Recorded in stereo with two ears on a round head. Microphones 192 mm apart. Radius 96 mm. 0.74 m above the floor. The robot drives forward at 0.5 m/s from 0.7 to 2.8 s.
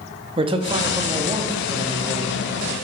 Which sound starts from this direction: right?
A man speaking, at 0.4 s.